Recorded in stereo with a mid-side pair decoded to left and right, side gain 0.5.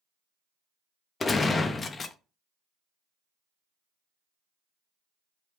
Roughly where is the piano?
No piano in this recording.